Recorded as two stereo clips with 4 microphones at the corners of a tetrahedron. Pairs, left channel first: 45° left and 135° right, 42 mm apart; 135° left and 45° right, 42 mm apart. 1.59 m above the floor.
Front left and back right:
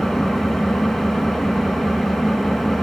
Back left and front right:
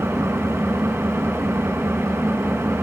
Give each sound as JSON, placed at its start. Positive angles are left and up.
{"t": 0.0, "sound": "an engine running", "azimuth_deg": -35, "distance_m": 4.0}